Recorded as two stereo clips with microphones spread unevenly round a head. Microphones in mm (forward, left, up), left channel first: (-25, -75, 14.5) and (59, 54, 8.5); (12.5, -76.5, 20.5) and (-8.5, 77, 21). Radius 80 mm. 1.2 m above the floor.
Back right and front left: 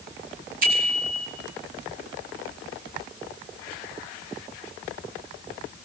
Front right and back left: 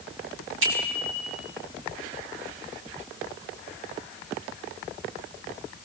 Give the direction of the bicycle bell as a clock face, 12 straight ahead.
9 o'clock.